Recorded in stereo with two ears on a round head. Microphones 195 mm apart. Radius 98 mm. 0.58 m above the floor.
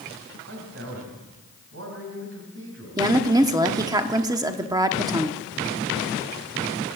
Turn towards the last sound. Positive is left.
turn(degrees=-20)  # may be behind; listen again after turning